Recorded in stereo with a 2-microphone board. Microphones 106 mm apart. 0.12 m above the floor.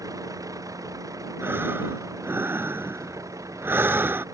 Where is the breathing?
20° right (ahead or behind).